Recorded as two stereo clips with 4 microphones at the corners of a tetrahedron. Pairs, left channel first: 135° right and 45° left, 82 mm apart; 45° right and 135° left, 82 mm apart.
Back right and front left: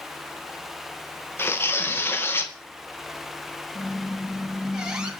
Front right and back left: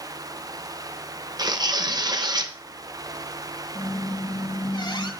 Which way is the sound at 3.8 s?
35° right.